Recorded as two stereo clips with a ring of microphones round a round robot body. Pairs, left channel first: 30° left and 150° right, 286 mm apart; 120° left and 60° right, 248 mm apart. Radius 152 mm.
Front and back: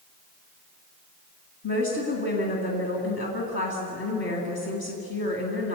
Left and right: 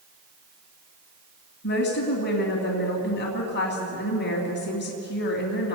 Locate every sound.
1.6 s a woman speaking: 75° left, 3 m